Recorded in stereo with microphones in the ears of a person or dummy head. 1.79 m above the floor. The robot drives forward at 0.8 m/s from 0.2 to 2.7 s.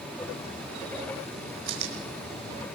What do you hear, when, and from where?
1.7 s chewing: 65° right (ahead or behind), 5.5 m; by 2.6 s 60° right (ahead or behind), 5.5 m